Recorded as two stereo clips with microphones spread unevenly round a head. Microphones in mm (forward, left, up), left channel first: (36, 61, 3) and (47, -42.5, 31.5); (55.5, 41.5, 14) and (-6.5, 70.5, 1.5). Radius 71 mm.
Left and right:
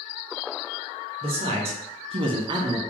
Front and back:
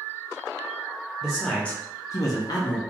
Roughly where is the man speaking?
Behind right.